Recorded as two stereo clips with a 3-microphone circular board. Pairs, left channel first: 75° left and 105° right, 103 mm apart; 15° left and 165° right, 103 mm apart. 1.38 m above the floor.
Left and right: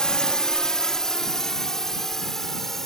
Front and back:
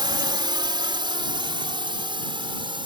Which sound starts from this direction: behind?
A drone, at 0.0 s.